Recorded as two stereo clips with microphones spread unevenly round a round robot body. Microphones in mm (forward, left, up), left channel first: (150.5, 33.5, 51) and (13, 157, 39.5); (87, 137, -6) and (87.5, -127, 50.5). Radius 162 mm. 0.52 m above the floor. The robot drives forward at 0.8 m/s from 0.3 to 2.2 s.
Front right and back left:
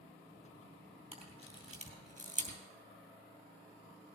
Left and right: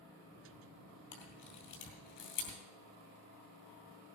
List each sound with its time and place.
1.1 s a camera shutter: 80° left, 6 m; by 2.6 s 90° left, 6 m